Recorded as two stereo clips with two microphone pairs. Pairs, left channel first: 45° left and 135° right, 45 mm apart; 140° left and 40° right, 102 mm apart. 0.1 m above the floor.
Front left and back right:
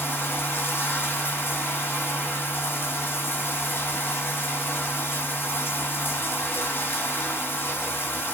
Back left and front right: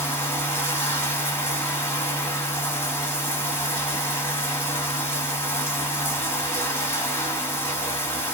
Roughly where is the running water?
Left.